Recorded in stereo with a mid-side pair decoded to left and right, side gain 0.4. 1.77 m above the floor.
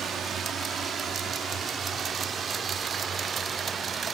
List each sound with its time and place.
0.0 s a drone: 65° right; by 4.1 s 55° right